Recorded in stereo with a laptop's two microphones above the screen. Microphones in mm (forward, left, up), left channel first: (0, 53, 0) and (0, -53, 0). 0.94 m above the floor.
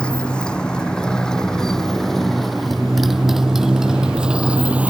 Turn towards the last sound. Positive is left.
turn(degrees=-15)  # may be behind; listen again after turning